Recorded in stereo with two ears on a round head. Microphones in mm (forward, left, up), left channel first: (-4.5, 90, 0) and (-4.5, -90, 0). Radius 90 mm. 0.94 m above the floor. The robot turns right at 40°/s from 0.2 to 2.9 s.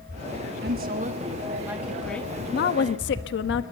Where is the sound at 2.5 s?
50° left (ahead or behind), 1.2 m; by 3.6 s 60° left (ahead or behind), 1.2 m.